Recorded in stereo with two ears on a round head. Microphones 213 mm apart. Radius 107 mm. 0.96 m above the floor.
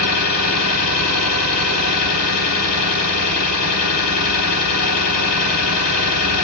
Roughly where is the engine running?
Left.